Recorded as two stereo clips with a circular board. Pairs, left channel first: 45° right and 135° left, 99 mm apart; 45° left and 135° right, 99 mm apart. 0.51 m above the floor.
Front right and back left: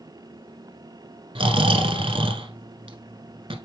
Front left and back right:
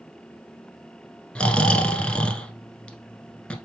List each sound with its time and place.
1.4 s snoring: 125° left, 0.9 m